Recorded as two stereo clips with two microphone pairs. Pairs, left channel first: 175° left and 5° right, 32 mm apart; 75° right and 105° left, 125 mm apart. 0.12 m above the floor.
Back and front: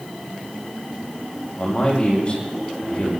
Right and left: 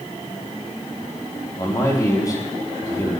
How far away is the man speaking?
About 5.5 m.